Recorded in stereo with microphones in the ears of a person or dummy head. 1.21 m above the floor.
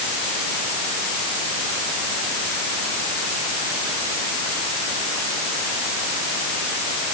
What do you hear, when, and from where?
Only background noise.